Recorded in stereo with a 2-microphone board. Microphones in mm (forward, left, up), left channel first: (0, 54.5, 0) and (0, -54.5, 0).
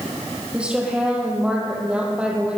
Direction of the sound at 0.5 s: 10° right (ahead or behind).